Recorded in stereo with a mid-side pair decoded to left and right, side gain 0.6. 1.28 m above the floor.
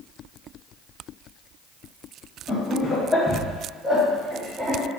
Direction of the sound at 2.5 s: 35° left.